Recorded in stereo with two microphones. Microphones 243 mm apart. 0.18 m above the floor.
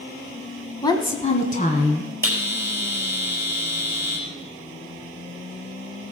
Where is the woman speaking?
15° left (ahead or behind), 1.2 m; by 2.1 s 35° left (ahead or behind), 2 m.